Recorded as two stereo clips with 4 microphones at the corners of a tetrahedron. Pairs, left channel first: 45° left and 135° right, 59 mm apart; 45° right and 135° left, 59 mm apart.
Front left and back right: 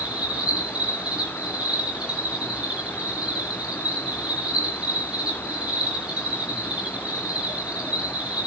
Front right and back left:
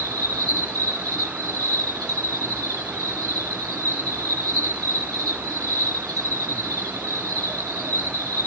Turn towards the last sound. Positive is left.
turn(degrees=150)